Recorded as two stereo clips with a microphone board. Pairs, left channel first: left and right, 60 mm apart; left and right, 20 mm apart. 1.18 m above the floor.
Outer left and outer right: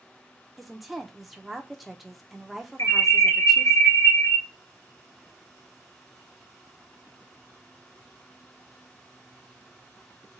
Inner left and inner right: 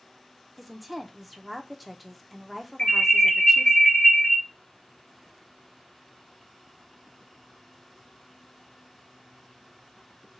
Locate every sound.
0.6 s a woman speaking: centre (ahead or behind), 0.7 m
2.8 s an alarm: 55° left (ahead or behind), 1.6 m